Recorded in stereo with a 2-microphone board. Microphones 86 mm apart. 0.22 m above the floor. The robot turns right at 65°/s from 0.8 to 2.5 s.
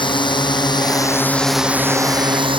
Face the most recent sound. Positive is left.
turn(degrees=-75)  # may be behind; listen again after turning